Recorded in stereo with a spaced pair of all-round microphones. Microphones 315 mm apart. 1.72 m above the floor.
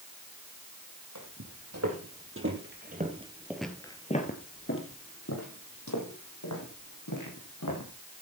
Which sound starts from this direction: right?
Footsteps, at 1.1 s.